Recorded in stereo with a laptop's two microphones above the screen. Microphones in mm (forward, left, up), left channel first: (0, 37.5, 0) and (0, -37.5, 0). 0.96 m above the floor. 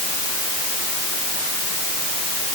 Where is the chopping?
No chopping in this recording.